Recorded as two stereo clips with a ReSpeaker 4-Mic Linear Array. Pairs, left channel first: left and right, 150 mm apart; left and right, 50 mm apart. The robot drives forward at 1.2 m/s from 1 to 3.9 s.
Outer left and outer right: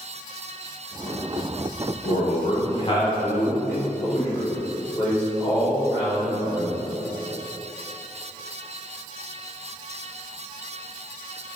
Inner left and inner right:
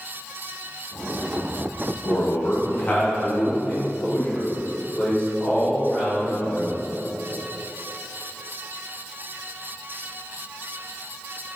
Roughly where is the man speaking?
Left.